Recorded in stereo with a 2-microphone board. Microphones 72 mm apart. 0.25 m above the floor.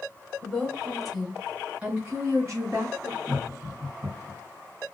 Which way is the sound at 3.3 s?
15° right (ahead or behind).